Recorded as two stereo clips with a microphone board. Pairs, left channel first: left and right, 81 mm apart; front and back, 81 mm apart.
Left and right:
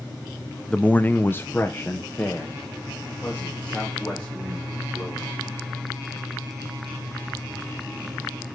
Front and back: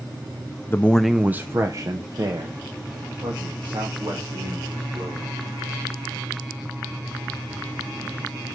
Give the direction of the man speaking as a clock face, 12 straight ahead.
11 o'clock.